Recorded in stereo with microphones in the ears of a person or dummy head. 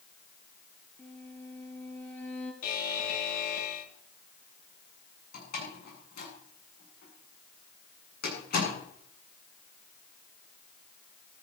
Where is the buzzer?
55° left (ahead or behind), 3 m.